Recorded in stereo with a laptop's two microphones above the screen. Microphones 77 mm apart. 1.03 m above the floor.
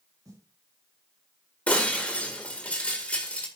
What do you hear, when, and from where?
0.2 s a snare drum: 50° right (ahead or behind), 5.5 m
1.7 s breaking glass: 15° left (ahead or behind), 1.7 m